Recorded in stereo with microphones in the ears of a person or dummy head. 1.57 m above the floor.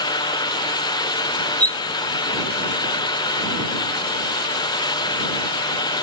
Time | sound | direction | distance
1.6 | cutlery clinking | 10° left (ahead or behind) | ?